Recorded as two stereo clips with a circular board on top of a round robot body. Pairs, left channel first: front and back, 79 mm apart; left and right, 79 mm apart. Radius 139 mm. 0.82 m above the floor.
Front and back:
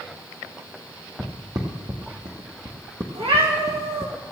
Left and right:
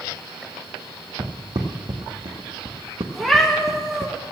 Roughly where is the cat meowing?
Behind.